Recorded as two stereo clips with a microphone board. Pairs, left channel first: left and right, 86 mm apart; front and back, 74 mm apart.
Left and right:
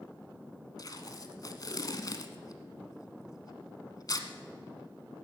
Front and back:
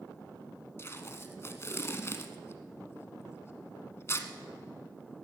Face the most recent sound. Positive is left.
turn(degrees=50)